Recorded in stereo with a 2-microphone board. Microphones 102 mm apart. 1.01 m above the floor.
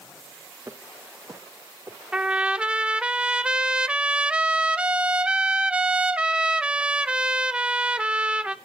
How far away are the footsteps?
About 2 m.